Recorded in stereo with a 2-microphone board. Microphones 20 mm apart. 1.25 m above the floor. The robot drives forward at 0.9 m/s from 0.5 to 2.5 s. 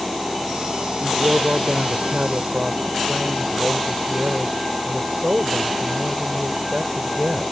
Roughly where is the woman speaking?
Right.